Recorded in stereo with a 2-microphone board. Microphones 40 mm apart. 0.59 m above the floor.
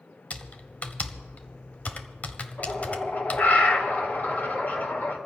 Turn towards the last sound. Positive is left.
turn(degrees=50)  # may be behind; listen again after turning